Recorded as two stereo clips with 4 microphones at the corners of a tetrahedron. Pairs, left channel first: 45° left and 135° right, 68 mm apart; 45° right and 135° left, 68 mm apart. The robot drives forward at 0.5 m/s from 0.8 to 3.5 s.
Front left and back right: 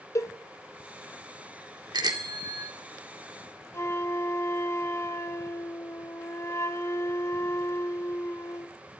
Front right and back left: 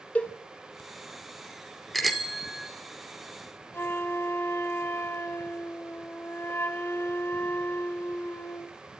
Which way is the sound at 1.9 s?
135° right.